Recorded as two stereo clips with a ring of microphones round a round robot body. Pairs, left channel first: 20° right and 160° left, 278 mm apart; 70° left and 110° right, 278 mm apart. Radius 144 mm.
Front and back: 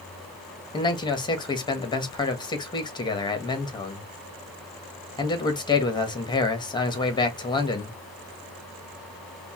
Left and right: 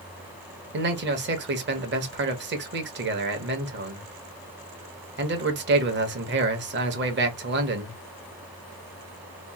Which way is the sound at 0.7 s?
90° right.